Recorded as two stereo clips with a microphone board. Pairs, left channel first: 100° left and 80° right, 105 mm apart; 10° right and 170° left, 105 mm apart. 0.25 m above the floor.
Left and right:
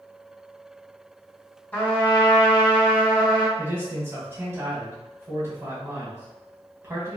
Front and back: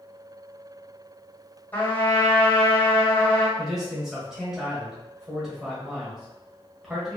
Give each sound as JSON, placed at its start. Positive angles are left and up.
{"t": 1.7, "sound": "a trumpet", "azimuth_deg": 45, "distance_m": 1.6}
{"t": 3.6, "sound": "a man speaking", "azimuth_deg": -110, "distance_m": 1.5}